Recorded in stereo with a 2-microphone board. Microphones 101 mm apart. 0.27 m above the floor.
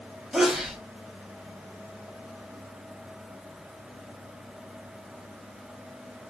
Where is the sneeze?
5° right (ahead or behind), 1.1 m.